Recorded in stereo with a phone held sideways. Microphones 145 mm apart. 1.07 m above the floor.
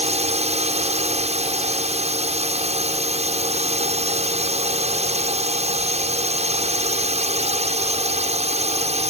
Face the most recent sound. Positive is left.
turn(degrees=-50)  # may be behind; listen again after turning